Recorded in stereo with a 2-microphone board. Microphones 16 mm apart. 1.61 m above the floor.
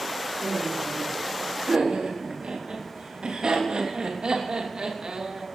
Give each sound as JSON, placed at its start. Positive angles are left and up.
{"t": 0.4, "sound": "laughter", "side_deg": -80, "distance_m": 4.5}